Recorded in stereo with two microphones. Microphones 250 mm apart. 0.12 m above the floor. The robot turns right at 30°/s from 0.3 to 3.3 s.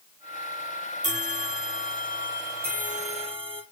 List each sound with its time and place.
1.0 s a bell: 90° right, 1.4 m; by 3.6 s 20° right, 1.4 m